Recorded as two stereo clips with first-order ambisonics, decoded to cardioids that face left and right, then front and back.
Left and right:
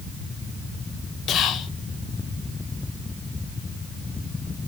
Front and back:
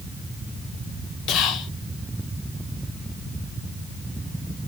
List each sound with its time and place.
1.3 s whispering: 40° left, 0.8 m